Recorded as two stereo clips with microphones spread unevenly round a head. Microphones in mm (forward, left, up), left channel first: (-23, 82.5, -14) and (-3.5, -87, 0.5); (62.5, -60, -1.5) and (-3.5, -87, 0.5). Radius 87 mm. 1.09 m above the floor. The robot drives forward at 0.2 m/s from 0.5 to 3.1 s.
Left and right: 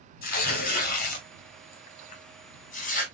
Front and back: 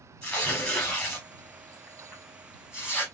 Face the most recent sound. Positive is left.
turn(degrees=130)